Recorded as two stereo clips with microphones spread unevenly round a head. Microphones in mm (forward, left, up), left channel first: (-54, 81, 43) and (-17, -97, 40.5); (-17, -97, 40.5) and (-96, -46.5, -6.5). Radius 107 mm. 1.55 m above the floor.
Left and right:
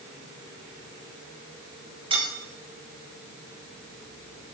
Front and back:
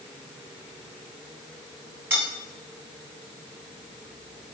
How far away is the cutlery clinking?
About 9.5 m.